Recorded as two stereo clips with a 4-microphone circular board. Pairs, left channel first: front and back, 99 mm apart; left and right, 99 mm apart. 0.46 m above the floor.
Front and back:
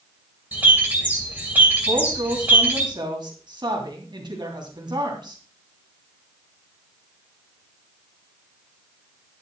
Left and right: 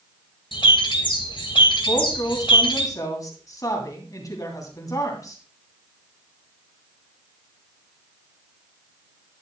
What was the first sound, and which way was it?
A bird, 110° left.